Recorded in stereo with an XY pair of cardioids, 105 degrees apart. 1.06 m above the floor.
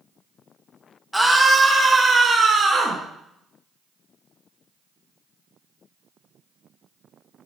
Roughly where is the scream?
Ahead.